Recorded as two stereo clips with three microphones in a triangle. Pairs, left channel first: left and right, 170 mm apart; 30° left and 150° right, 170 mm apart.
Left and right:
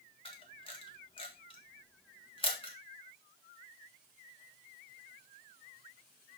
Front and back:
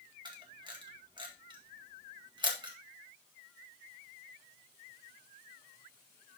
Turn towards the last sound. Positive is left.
turn(degrees=150)